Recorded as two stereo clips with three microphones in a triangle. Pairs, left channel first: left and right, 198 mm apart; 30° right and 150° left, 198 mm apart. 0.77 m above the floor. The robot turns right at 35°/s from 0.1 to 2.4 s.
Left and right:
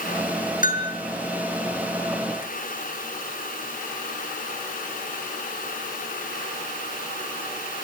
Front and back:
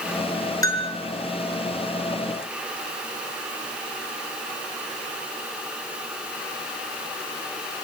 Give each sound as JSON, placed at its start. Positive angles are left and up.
{"t": 0.6, "sound": "a bell", "azimuth_deg": 45, "distance_m": 4.0}